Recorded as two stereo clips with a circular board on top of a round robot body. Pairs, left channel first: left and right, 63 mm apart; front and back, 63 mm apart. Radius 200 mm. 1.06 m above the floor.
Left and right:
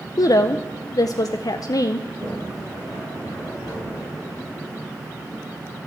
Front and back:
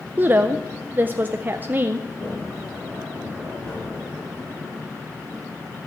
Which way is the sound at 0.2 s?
120° left.